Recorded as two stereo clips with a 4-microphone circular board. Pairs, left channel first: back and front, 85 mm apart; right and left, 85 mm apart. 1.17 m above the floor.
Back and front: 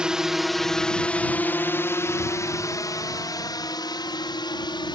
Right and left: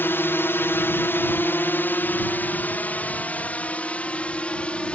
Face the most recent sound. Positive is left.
turn(degrees=-165)